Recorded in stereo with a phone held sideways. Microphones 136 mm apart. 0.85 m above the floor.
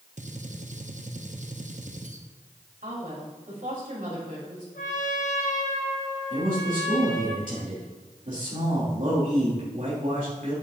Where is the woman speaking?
80° right, 3.5 m.